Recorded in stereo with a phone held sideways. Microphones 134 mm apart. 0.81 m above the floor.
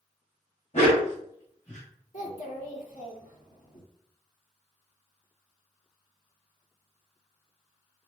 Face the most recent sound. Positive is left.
turn(degrees=75)  # may be behind; listen again after turning